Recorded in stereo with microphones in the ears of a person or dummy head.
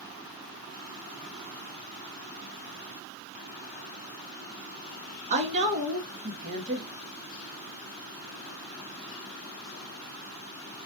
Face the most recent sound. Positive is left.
turn(degrees=-35)  # may be behind; listen again after turning